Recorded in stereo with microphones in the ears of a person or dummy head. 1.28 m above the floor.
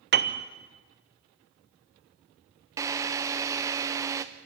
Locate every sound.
0.1 s a piano: 50° right (ahead or behind), 1.0 m
2.8 s a drill: 15° right (ahead or behind), 0.8 m